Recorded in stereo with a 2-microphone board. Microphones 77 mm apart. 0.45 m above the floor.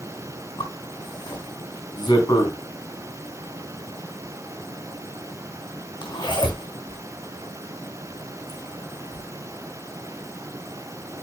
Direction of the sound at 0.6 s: 75° left (ahead or behind).